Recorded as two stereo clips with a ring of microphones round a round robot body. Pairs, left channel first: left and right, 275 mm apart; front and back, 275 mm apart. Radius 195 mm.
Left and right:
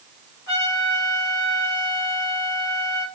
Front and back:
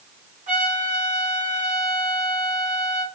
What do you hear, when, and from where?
0.5 s a trumpet: 120° left, 2 m